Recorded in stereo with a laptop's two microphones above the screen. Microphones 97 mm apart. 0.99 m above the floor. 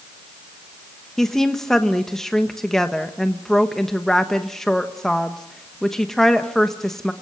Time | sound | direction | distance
1.2 | a woman speaking | 5° left (ahead or behind) | 1.2 m